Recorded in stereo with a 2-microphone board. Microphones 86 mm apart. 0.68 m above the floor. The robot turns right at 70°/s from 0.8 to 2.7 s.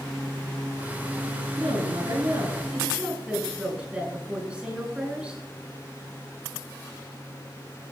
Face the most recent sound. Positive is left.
turn(degrees=-15)